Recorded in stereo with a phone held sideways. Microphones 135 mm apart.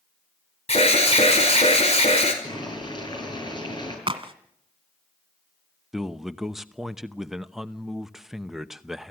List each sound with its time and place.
0.7 s an alarm: 50° left (ahead or behind), 5 m
2.4 s boiling: 35° left (ahead or behind), 8.5 m
4.1 s a crack: 40° right (ahead or behind), 1.9 m
5.9 s a man speaking: 5° right (ahead or behind), 0.9 m